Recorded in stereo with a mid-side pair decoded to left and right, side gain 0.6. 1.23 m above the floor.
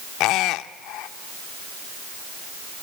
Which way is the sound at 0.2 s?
70° left.